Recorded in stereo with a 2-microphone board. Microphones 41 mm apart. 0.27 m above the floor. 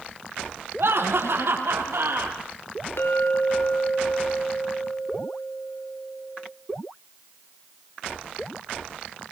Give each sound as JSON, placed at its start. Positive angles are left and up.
{"t": 0.8, "sound": "laughter", "side_deg": -70, "distance_m": 6.5}
{"t": 3.0, "sound": "a clink", "side_deg": 70, "distance_m": 2.5}